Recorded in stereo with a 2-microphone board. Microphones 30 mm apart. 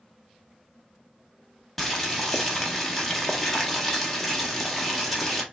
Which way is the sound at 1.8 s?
5° left (ahead or behind).